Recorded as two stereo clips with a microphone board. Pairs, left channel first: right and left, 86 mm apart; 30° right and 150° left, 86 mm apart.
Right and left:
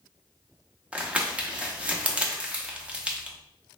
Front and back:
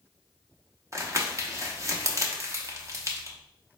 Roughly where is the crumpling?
Behind.